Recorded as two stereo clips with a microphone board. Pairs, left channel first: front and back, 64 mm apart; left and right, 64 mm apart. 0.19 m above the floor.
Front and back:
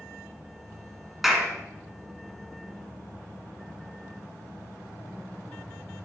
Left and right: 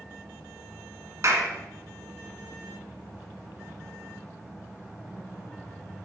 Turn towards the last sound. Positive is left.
turn(degrees=-90)